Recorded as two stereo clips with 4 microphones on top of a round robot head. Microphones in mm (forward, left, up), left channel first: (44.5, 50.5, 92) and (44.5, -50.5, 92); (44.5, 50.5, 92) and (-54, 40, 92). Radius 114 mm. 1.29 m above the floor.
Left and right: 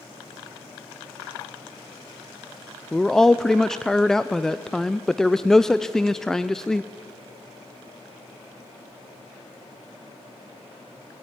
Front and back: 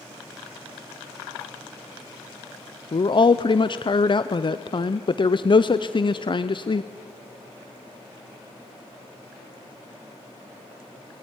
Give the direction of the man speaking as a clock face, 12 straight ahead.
12 o'clock.